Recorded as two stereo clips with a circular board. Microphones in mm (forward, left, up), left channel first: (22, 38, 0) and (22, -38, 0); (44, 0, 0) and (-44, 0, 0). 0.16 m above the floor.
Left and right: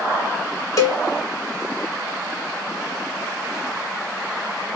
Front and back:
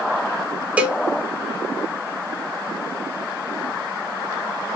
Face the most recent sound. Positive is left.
turn(degrees=110)